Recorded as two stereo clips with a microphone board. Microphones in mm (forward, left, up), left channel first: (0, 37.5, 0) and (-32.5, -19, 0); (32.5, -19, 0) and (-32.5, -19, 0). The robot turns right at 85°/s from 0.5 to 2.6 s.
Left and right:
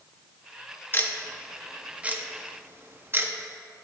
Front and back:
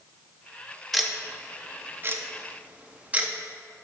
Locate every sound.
0.9 s ticking: 90° left, 0.8 m; by 3.3 s 130° right, 0.8 m